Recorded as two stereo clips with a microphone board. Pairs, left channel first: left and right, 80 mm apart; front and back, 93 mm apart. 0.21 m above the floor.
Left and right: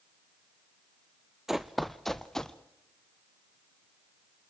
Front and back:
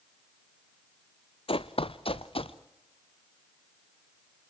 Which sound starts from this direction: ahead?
Running footsteps, at 1.5 s.